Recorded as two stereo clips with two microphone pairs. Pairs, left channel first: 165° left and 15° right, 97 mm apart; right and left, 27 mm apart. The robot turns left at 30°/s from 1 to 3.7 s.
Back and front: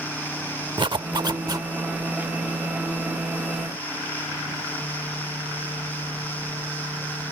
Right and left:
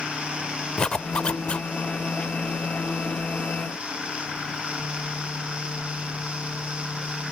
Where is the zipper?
40° right; by 1.7 s 60° right.